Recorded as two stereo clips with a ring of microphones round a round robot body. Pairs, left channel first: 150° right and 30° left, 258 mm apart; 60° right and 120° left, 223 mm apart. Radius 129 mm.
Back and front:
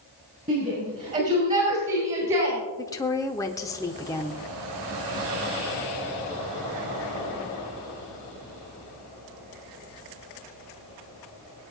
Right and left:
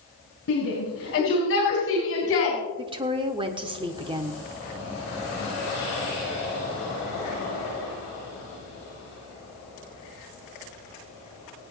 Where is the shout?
30° right, 6.5 m; by 2.6 s 35° right, 4 m.